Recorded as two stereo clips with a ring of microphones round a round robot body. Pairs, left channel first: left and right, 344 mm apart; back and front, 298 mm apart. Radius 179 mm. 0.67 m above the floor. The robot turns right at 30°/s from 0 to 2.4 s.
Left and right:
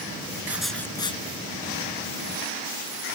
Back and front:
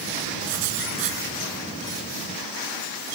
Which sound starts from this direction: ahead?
Writing, at 0.5 s.